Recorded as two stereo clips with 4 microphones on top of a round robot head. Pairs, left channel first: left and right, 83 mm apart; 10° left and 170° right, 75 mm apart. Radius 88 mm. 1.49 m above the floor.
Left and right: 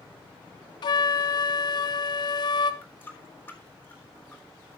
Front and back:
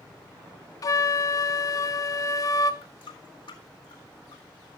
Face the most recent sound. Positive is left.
turn(degrees=20)